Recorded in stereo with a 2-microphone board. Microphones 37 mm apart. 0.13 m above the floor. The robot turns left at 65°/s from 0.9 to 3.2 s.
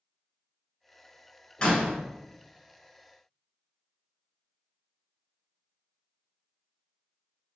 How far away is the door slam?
About 1.0 m.